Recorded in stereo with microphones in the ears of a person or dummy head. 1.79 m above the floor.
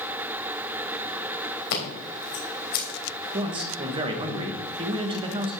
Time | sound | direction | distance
1.7 | scissors | 55° left (ahead or behind) | 3 m
3.3 | a man speaking | 30° right (ahead or behind) | 1.5 m